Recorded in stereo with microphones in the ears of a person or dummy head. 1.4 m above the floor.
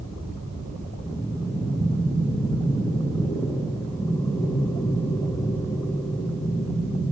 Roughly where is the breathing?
Centre.